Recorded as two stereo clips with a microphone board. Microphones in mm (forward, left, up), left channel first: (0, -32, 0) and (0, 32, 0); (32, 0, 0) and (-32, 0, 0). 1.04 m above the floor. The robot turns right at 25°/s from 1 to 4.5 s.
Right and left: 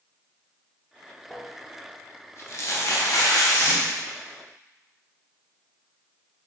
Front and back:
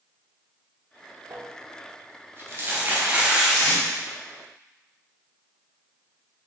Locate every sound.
1.3 s crumpling: 160° right, 0.6 m; by 4.0 s 90° right, 0.6 m
3.5 s tape being pulled: 65° left, 1.7 m; by 3.8 s 70° left, 1.7 m